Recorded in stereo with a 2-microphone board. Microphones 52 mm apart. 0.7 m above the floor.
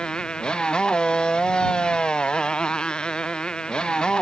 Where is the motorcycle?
15° left (ahead or behind).